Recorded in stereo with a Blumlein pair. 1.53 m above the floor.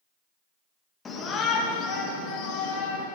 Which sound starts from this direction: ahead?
A shout, at 1.1 s.